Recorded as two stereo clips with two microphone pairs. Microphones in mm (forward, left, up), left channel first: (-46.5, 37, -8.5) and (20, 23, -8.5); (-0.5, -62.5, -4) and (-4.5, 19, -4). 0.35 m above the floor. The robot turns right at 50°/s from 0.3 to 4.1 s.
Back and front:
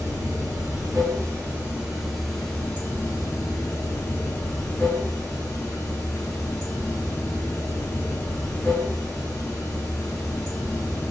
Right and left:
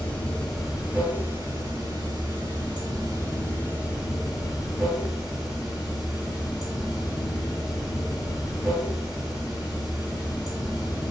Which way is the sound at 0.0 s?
10° right.